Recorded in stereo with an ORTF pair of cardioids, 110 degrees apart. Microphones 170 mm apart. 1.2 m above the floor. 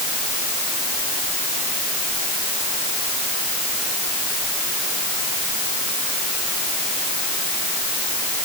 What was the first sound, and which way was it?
Only background noise.